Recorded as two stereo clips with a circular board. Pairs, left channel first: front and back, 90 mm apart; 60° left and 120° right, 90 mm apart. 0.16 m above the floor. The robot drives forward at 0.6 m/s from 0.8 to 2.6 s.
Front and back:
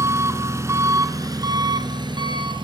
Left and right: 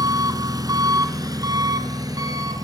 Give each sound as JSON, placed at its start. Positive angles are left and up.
{"t": 0.0, "sound": "an engine running", "azimuth_deg": -140, "distance_m": 1.0}